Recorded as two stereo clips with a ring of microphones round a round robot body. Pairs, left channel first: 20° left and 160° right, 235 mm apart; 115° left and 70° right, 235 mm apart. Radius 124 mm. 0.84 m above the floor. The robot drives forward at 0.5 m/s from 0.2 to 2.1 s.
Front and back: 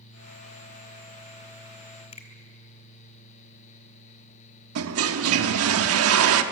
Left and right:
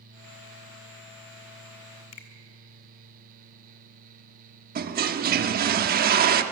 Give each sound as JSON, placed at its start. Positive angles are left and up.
{"t": 2.1, "sound": "a finger snap", "azimuth_deg": 90, "distance_m": 2.0}
{"t": 4.8, "sound": "a toilet flushing", "azimuth_deg": -125, "distance_m": 1.0}